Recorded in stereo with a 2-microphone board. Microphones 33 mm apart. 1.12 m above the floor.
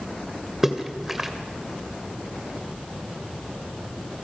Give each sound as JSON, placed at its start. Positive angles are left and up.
{"t": 0.6, "sound": "a splash", "side_deg": -10, "distance_m": 2.0}